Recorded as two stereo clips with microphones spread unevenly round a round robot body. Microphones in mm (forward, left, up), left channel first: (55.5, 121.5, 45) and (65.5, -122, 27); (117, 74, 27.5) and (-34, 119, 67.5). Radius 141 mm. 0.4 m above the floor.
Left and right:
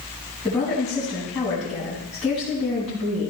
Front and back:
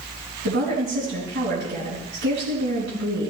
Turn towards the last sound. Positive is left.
turn(degrees=-175)